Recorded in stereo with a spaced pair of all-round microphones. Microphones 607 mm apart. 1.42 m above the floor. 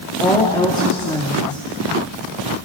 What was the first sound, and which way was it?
A woman speaking, 5° left (ahead or behind).